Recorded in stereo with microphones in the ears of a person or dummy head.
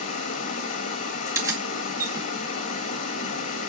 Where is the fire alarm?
I don't hear a fire alarm.